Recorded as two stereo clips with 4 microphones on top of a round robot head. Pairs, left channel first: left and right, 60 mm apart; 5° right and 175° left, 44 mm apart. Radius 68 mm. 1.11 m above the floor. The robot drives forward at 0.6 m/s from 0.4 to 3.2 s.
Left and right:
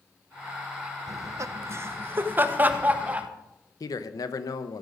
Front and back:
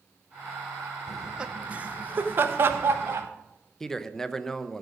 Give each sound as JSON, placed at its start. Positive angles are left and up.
{"t": 1.1, "sound": "laughter", "azimuth_deg": -105, "distance_m": 0.7}
{"t": 3.8, "sound": "a man speaking", "azimuth_deg": 70, "distance_m": 0.9}